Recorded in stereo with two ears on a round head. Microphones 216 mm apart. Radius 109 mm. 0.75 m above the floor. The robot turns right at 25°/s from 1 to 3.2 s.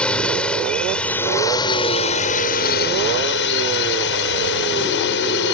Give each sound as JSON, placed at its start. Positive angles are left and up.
{"t": 0.0, "sound": "a drone", "azimuth_deg": 5}